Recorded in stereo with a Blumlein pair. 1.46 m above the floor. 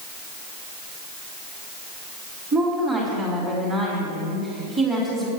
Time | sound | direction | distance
2.5 | a woman speaking | 20° right | 3.5 m